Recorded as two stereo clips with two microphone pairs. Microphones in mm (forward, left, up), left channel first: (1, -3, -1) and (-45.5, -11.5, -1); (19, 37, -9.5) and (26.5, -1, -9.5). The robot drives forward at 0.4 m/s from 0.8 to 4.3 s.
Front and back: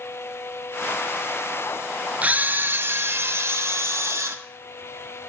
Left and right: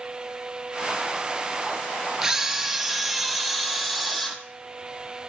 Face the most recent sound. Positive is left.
turn(degrees=-170)